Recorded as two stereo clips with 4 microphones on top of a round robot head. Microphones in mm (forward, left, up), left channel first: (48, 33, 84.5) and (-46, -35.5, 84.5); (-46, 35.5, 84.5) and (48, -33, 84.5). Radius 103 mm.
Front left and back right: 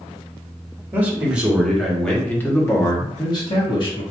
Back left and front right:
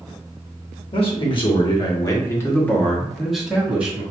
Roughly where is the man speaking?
Behind left.